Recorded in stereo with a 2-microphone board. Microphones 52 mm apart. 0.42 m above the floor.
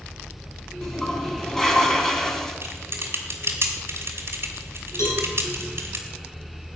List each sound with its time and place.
0.8 s a toilet flushing: 10° left (ahead or behind), 2 m
2.6 s typing on a keyboard: 50° right (ahead or behind), 2.5 m
5.0 s a cowbell: 70° left (ahead or behind), 6.5 m